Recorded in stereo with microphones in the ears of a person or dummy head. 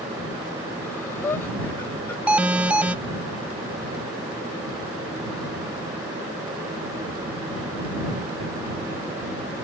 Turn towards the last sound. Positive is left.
turn(degrees=-5)  # may be behind; listen again after turning